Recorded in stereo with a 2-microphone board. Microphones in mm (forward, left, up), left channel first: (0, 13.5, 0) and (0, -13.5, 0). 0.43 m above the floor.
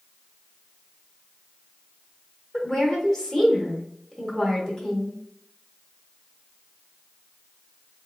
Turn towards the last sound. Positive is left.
turn(degrees=25)  # may be behind; listen again after turning